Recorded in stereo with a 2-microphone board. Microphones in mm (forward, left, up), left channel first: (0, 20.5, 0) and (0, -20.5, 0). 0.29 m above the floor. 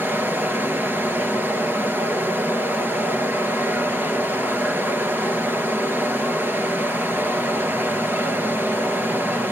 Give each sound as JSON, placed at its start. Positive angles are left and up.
{"t": 0.0, "sound": "running water", "side_deg": -65, "distance_m": 2.5}